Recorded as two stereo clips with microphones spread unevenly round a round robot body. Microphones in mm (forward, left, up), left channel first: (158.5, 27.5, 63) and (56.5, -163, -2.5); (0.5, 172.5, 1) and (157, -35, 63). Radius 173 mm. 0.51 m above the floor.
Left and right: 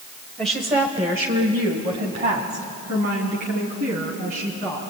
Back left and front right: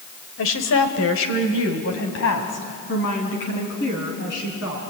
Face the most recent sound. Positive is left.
turn(degrees=180)